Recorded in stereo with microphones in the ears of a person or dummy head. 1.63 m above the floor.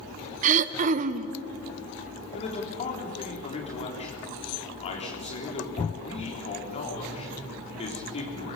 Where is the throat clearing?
45° right (ahead or behind), 0.8 m.